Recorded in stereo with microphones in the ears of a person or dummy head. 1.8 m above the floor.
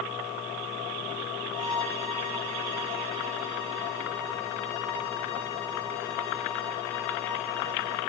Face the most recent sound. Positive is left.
turn(degrees=85)